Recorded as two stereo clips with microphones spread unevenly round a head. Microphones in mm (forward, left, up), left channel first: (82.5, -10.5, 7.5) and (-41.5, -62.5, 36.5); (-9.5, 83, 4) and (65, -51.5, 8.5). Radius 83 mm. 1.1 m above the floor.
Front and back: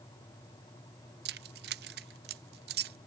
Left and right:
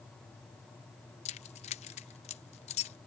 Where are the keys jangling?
175° left.